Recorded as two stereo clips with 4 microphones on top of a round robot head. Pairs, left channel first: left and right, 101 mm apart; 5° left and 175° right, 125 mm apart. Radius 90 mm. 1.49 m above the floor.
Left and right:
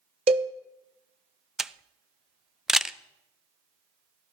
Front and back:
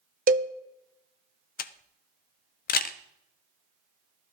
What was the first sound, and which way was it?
A cowbell, 140° right.